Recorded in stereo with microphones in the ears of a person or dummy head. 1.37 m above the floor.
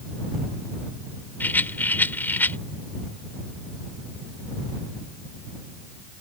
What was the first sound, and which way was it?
A rattle, 10° left (ahead or behind).